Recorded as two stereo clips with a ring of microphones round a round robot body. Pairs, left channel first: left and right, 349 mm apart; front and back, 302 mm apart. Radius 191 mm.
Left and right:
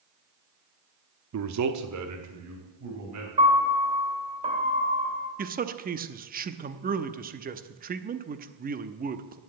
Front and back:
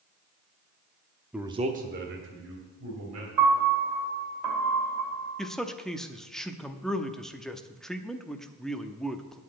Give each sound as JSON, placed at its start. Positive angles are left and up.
{"t": 1.3, "sound": "a man speaking", "azimuth_deg": -95, "distance_m": 0.8}
{"t": 3.4, "sound": "a piano", "azimuth_deg": -160, "distance_m": 2.5}
{"t": 5.4, "sound": "a man speaking", "azimuth_deg": -85, "distance_m": 0.7}